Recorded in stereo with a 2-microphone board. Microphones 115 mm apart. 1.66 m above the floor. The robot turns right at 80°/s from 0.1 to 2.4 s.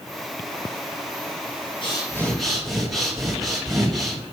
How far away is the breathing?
About 2.5 m.